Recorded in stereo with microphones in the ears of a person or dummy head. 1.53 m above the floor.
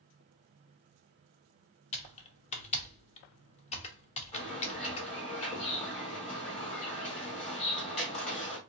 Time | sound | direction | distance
1.9 | typing on a keyboard | 35° left (ahead or behind) | 0.7 m
4.3 | a bird | 35° left (ahead or behind) | 1.7 m